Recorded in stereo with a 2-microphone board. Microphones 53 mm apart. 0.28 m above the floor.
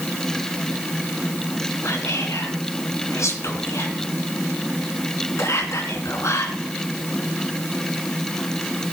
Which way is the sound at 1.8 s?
65° left (ahead or behind).